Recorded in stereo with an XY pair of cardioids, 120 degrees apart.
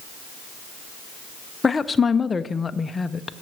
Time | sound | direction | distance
1.6 | a woman speaking | 25° left | 0.6 m